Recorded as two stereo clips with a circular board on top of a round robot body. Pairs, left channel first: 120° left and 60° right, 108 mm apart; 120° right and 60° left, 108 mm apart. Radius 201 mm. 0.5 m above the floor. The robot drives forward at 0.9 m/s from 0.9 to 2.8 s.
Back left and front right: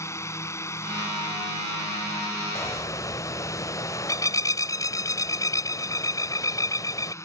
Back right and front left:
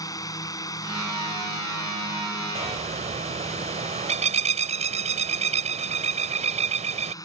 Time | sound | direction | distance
0.0 | a drone | 175° right | ?
2.5 | a bird | 55° left | ?